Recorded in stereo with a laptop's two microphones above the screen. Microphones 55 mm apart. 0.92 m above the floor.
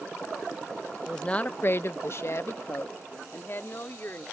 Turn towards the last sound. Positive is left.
turn(degrees=40)  # may be behind; listen again after turning